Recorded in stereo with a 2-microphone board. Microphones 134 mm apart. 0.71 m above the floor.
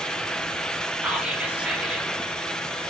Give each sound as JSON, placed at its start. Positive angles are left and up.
{"t": 1.0, "sound": "whispering", "side_deg": -10, "distance_m": 0.5}